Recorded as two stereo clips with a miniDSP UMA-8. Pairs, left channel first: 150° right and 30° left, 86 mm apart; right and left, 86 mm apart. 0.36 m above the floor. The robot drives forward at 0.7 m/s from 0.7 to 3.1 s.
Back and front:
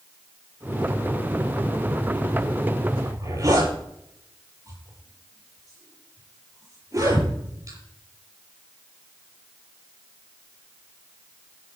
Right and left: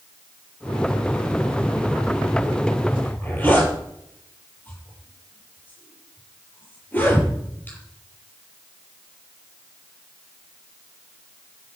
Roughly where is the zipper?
Ahead.